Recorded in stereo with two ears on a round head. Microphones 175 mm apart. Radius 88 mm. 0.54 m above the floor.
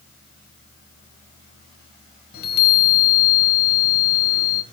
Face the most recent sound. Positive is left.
turn(degrees=55)  # may be behind; listen again after turning